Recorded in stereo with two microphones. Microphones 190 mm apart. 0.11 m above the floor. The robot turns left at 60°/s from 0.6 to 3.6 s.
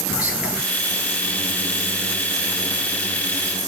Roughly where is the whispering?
Centre.